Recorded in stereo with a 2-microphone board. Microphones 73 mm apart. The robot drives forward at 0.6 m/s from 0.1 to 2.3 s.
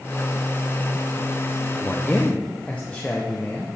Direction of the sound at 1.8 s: 30° left (ahead or behind).